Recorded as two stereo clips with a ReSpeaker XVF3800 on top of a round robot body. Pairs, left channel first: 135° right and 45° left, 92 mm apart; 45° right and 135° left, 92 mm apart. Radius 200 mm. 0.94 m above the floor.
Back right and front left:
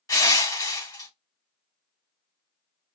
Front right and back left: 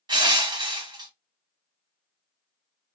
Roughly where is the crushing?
Behind.